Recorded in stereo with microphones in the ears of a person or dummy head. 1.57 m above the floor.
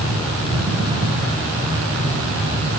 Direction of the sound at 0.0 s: 35° right (ahead or behind).